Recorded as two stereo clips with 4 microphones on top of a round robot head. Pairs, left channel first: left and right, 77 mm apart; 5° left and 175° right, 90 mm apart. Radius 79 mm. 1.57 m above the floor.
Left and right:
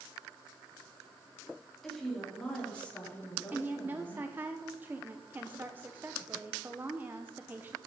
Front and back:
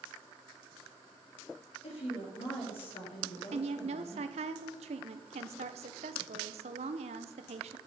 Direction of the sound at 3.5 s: 165° right.